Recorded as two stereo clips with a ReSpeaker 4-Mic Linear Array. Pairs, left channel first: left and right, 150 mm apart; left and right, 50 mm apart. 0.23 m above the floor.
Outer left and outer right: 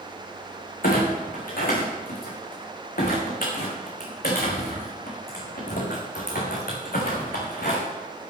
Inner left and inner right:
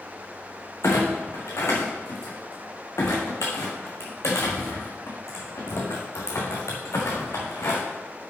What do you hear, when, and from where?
0.8 s a clunk: 75° left (ahead or behind), 3 m